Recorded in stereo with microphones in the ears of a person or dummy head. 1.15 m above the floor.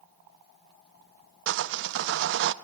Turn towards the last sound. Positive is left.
turn(degrees=-70)  # may be behind; listen again after turning